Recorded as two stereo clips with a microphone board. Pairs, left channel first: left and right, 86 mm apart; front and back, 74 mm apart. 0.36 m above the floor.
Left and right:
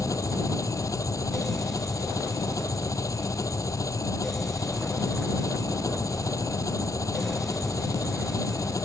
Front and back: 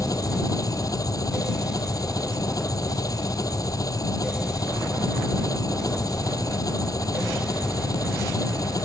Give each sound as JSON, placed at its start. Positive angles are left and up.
{"t": 0.0, "sound": "an engine running", "azimuth_deg": 40}